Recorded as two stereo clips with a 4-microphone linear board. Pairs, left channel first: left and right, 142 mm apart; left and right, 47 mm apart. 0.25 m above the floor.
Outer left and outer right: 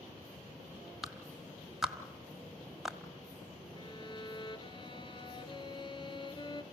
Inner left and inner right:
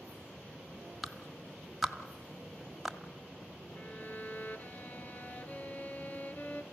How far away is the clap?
About 1.4 m.